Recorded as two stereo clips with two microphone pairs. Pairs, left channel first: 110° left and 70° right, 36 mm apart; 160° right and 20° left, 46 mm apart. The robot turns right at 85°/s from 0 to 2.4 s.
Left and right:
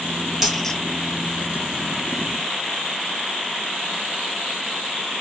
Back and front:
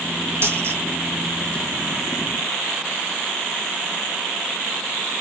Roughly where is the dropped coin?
Ahead.